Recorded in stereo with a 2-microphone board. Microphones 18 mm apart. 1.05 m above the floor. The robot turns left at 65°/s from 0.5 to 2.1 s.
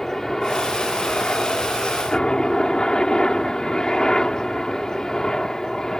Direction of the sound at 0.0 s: 20° left (ahead or behind).